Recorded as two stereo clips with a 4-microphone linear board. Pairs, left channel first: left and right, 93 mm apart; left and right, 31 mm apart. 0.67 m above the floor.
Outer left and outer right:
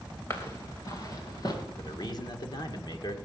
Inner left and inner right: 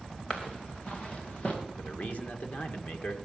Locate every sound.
0.3 s footsteps: 30° left (ahead or behind), 2.5 m; by 1.6 s 50° left (ahead or behind), 4.5 m
1.8 s a man speaking: 55° left (ahead or behind), 2 m